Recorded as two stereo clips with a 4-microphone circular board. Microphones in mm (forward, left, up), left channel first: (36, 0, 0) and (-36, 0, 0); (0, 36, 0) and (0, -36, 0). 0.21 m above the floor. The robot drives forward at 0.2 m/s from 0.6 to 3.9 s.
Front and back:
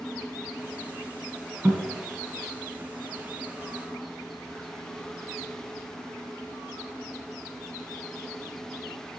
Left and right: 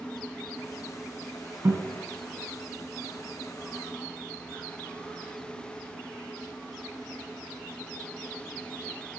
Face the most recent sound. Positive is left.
turn(degrees=-125)